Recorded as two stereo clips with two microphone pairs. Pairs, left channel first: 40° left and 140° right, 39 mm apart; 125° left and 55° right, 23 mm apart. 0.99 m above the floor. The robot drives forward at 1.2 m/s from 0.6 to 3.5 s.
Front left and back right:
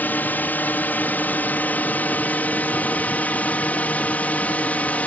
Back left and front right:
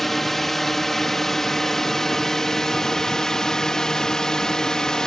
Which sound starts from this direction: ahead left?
A drone, at 0.0 s.